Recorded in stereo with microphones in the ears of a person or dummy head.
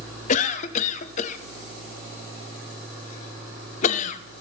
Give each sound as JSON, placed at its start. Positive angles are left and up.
{"t": 0.3, "sound": "a cough", "side_deg": 40, "distance_m": 0.7}